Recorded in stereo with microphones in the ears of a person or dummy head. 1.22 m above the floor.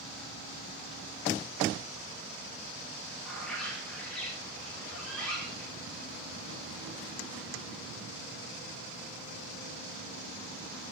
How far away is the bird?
About 1.6 m.